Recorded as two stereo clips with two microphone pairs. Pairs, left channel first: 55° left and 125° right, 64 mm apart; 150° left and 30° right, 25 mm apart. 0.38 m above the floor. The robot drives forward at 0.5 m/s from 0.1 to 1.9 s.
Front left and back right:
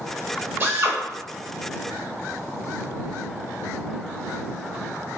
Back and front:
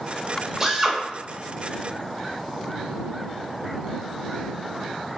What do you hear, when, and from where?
0.6 s a drill: 85° right, 0.7 m; by 1.0 s 105° right, 0.7 m